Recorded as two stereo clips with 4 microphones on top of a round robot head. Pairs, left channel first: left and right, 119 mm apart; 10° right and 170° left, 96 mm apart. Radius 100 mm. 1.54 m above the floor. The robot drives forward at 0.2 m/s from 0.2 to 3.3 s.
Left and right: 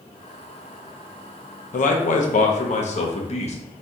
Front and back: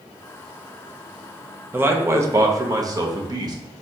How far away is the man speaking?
About 0.7 m.